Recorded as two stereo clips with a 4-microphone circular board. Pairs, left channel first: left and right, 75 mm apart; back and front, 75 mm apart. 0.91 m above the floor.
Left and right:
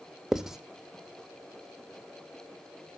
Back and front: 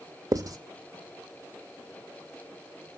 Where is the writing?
10° right, 0.8 m.